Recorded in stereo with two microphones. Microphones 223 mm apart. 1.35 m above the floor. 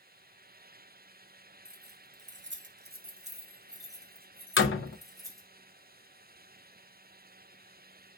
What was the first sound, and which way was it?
Keys jangling, 45° right (ahead or behind).